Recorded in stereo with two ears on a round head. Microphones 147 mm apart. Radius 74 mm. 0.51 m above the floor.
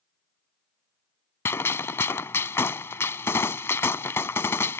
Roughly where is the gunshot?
Centre.